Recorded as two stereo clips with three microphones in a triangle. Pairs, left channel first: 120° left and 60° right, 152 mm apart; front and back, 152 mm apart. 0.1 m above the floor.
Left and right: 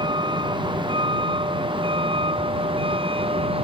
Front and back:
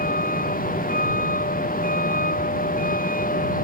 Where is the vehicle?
5° right; by 3.6 s 10° right.